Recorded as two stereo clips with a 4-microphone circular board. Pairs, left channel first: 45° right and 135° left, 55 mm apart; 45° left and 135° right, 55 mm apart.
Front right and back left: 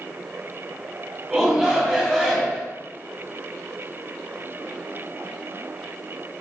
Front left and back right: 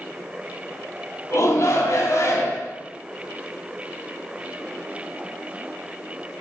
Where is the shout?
60° left, 3 m.